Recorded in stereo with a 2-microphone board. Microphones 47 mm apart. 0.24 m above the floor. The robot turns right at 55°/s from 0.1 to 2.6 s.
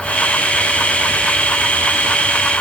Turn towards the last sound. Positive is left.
No sound to turn to.